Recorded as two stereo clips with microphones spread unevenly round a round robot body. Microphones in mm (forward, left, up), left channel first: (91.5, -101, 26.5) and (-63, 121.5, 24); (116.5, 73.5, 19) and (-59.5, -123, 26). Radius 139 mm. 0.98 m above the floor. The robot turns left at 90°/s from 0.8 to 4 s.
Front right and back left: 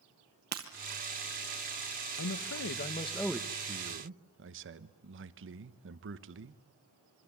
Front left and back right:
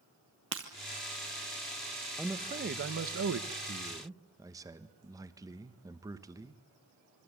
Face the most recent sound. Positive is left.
turn(degrees=150)